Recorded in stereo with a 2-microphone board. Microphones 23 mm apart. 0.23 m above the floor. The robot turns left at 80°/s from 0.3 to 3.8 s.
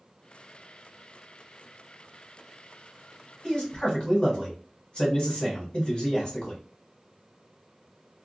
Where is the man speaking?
35° left (ahead or behind), 1.4 m; by 6.6 s 40° left (ahead or behind), 1.4 m.